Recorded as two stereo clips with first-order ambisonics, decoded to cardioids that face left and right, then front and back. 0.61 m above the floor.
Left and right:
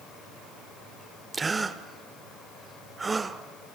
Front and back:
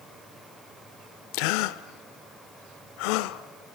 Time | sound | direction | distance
1.3 | a gasp | 15° right | 0.8 m